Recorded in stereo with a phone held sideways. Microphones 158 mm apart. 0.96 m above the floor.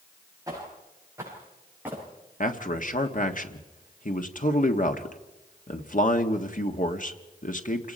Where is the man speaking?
55° left (ahead or behind), 1.6 m.